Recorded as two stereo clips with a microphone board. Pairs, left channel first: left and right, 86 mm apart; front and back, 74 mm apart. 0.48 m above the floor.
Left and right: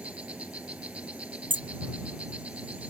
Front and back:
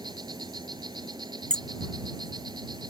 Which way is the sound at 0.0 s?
165° right.